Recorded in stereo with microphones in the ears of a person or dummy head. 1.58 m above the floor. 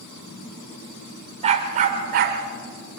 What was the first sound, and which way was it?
A dog barking, 40° right (ahead or behind).